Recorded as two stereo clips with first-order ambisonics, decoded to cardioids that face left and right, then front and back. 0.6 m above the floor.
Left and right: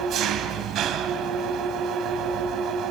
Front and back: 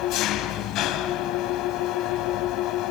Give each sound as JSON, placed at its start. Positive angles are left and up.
{"t": 0.0, "sound": "an engine running", "azimuth_deg": -40, "distance_m": 2.5}